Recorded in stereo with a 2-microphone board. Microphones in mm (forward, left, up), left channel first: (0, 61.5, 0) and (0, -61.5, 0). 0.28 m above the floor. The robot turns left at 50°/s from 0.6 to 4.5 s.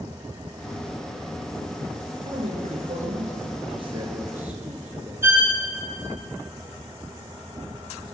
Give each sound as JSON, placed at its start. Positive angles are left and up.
{"t": 2.2, "sound": "a man speaking", "azimuth_deg": -55, "distance_m": 4.0}
{"t": 5.2, "sound": "a violin", "side_deg": -15, "distance_m": 2.0}